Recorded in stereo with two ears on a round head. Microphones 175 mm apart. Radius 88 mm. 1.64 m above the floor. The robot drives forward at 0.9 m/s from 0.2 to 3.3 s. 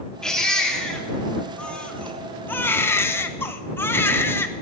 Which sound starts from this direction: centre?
A baby crying, at 0.2 s.